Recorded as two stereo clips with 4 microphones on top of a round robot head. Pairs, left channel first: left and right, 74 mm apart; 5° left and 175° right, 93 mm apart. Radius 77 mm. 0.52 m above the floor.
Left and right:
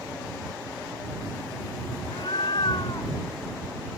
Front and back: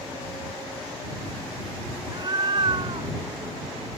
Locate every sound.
2.0 s a cat meowing: 135° left; by 3.1 s 150° left